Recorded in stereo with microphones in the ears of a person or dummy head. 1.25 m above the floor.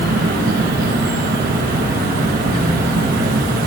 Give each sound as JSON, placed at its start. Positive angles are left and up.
{"t": 0.0, "sound": "an insect", "side_deg": -50, "distance_m": 1.0}